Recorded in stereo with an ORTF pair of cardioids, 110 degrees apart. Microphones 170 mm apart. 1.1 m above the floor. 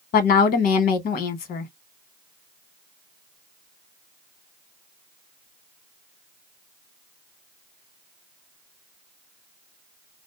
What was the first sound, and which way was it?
A woman speaking, 65° left.